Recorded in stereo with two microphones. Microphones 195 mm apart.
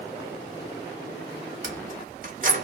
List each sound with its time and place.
1.6 s keys jangling: 45° right (ahead or behind), 0.8 m